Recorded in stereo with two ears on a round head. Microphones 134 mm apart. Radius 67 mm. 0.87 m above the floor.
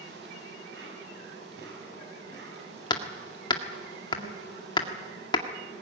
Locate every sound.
0.0 s an insect: 80° right, 8.5 m
2.9 s hammering: 30° left (ahead or behind), 1.8 m